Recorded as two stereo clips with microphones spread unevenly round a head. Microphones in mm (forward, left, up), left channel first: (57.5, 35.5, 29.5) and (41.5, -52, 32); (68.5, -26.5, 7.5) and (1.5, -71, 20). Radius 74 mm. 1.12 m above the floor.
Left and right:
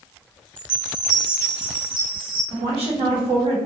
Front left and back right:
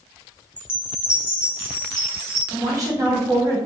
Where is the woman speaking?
100° right, 1.2 m.